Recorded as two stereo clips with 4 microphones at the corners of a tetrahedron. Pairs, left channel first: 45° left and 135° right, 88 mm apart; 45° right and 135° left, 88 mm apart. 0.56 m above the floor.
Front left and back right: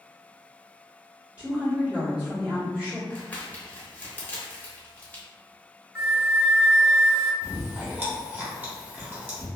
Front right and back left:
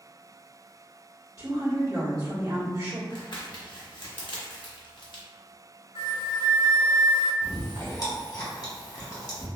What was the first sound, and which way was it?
A woman speaking, 155° left.